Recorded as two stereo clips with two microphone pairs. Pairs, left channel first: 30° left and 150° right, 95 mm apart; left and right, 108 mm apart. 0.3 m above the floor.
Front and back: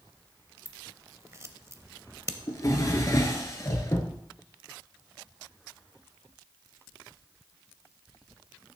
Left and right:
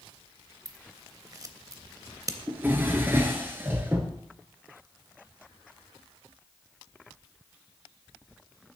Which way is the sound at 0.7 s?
115° right.